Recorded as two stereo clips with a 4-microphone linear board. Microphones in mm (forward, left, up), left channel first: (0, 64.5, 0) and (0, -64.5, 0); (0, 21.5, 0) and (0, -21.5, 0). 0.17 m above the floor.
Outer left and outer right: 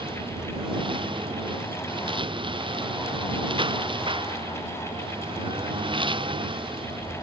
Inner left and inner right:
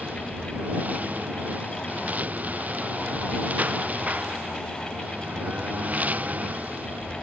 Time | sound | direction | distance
0.0 | a lawn mower | 40° right (ahead or behind) | ?